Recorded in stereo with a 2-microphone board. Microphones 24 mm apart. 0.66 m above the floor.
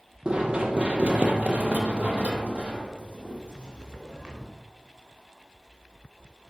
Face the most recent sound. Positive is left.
turn(degrees=-30)  # may be behind; listen again after turning